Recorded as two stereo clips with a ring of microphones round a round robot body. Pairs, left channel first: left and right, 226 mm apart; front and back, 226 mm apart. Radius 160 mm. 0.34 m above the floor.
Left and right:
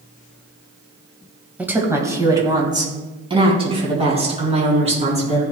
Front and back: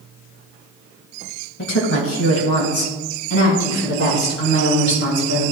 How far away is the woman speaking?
About 2 m.